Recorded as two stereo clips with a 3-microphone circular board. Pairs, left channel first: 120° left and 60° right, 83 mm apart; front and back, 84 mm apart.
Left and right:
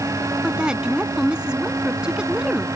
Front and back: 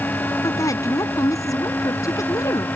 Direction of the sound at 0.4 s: 15° left.